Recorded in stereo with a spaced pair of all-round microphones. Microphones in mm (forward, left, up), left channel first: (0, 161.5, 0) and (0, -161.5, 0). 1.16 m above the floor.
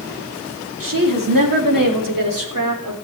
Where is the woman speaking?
80° right, 2.5 m; by 3.0 s 85° right, 3.5 m.